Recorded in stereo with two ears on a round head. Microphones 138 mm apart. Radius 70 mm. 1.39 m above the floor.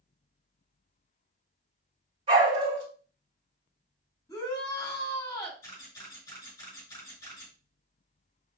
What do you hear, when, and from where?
2.3 s a dog barking: 35° right (ahead or behind), 2 m
4.3 s a shout: 20° left (ahead or behind), 3.5 m
5.6 s a camera shutter: 20° left (ahead or behind), 3.5 m